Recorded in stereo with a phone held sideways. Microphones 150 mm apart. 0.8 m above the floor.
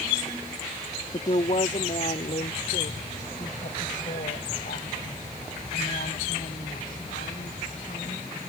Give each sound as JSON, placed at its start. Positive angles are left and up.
{"t": 1.1, "sound": "a woman speaking", "side_deg": 45}